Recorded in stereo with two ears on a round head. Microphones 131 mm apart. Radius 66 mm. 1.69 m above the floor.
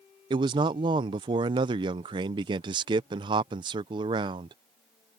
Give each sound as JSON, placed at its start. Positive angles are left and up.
{"t": 0.3, "sound": "a man speaking", "side_deg": -35}